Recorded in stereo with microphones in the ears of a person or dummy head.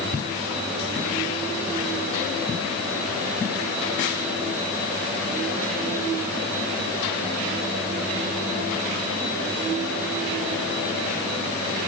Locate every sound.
Only background noise.